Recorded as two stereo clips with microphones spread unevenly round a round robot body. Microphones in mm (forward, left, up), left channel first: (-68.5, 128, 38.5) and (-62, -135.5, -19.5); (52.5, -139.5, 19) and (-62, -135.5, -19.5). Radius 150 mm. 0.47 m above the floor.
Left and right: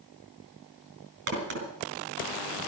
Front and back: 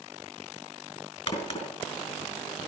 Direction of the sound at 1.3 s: 35° right.